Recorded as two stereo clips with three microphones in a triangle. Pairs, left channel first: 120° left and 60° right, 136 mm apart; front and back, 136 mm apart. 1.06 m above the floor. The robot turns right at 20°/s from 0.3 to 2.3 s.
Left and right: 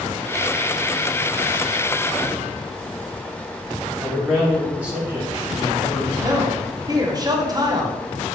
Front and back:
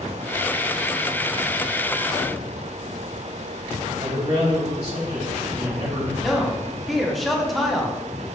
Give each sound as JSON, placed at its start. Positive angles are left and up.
{"t": 4.0, "sound": "a man speaking", "azimuth_deg": -140, "distance_m": 1.8}
{"t": 6.2, "sound": "a man speaking", "azimuth_deg": -90, "distance_m": 0.7}